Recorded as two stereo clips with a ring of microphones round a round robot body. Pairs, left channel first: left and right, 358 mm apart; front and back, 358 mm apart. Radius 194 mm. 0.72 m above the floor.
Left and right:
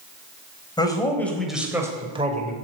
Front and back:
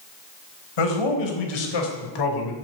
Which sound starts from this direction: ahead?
A man speaking, at 0.8 s.